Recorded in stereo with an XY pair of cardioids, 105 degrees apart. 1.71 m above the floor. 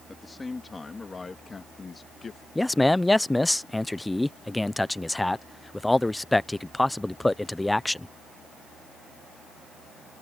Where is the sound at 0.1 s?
20° left; by 2.5 s 40° left.